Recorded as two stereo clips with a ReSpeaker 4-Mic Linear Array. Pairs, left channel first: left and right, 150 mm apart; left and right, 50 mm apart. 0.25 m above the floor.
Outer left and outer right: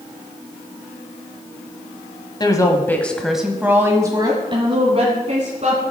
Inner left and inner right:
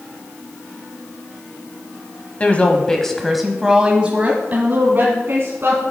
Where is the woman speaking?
30° left (ahead or behind), 1.3 m; by 5.8 s 50° right (ahead or behind), 2 m.